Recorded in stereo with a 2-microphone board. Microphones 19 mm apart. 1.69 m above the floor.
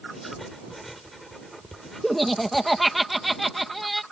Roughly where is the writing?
Centre.